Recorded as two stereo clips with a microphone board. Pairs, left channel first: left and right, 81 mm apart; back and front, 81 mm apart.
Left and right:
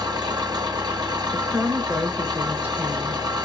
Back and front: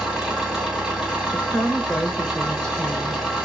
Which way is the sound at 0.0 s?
80° right.